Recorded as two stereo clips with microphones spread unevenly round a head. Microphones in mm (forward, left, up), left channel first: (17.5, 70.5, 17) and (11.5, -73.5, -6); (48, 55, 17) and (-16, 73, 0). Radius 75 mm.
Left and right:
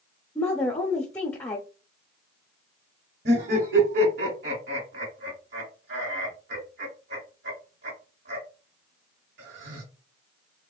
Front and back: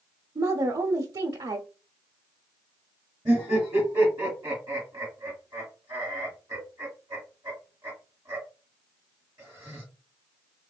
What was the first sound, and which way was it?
A woman speaking, 165° left.